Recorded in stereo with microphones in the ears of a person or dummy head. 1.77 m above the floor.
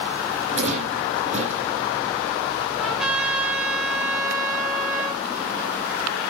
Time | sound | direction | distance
0.5 | a rattle | 45° right (ahead or behind) | 9.5 m
2.8 | a trumpet | 5° right (ahead or behind) | 2 m